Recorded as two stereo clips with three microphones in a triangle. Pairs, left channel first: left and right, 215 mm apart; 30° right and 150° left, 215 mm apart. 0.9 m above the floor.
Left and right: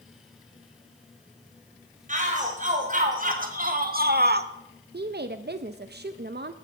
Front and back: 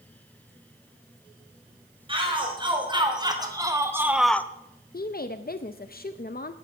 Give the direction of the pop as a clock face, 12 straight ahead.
I don't hear a pop.